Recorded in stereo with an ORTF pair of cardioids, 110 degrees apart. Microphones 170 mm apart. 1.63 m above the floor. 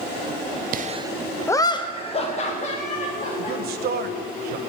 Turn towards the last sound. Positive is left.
turn(degrees=-65)